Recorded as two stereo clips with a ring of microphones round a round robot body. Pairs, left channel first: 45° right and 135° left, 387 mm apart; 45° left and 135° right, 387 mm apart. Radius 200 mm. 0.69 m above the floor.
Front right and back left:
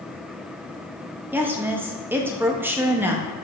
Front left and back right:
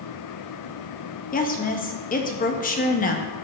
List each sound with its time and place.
1.3 s a woman speaking: 60° left, 0.8 m